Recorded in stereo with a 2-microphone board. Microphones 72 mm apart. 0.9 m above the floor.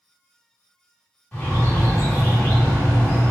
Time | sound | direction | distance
1.3 | a bird | 25° left (ahead or behind) | 1.5 m